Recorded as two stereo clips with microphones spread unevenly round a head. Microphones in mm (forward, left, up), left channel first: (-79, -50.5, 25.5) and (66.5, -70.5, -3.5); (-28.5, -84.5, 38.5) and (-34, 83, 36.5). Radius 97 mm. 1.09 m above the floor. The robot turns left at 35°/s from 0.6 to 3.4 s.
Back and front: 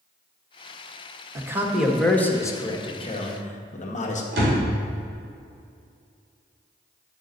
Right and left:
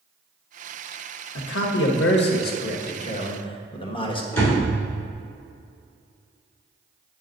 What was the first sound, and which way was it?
A man speaking, 75° right.